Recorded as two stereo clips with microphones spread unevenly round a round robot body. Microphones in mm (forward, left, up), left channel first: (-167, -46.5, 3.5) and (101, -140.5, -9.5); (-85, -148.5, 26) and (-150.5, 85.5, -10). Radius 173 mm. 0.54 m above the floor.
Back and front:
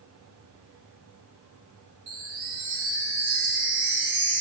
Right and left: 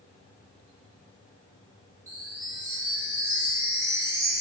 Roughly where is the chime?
Ahead left.